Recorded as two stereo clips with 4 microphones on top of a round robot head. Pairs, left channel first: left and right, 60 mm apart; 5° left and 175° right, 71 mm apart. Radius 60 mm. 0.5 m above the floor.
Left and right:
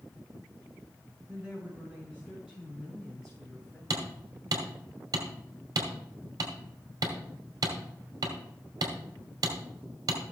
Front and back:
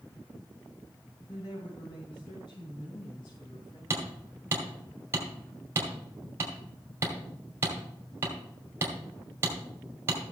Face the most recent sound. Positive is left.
turn(degrees=-115)